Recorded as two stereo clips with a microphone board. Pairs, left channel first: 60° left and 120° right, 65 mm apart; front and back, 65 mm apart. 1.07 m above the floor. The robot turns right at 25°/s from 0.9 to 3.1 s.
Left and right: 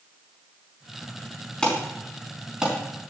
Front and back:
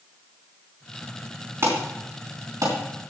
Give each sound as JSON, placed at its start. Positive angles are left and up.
{"t": 1.6, "sound": "an alarm", "azimuth_deg": 135, "distance_m": 4.0}